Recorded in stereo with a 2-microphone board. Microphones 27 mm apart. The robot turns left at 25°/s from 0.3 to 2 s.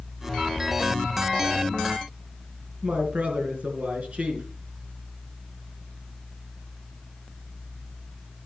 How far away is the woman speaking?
About 4 m.